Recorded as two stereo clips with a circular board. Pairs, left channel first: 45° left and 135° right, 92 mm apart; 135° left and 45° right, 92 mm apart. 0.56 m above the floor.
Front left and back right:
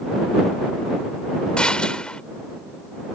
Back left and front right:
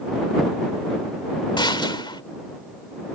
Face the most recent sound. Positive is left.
turn(degrees=125)